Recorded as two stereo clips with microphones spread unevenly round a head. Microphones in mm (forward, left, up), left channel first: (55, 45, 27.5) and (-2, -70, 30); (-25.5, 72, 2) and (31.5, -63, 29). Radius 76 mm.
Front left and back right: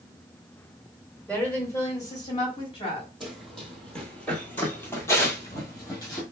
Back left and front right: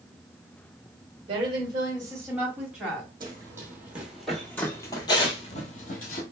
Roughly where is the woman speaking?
Ahead.